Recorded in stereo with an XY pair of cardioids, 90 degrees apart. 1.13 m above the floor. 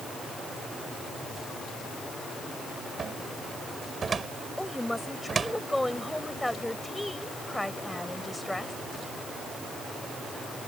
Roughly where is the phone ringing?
I don't hear a phone ringing.